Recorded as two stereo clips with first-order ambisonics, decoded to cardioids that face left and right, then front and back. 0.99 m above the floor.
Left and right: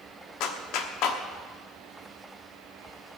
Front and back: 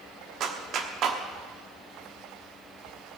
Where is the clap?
125° left, 1.3 m.